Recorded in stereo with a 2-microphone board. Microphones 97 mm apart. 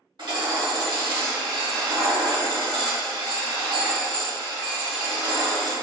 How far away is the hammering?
About 1.1 m.